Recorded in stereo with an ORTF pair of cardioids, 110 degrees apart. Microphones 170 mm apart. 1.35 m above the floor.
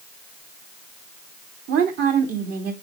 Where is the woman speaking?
65° right, 3 m.